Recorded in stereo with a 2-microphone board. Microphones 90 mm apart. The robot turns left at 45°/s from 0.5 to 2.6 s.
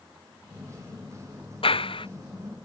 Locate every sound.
1.6 s a clap: 85° left; by 2.1 s 70° left (ahead or behind)